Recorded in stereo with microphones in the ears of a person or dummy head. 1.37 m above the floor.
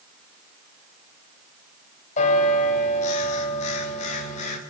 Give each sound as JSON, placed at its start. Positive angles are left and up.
{"t": 2.2, "sound": "a bell", "side_deg": 45, "distance_m": 7.5}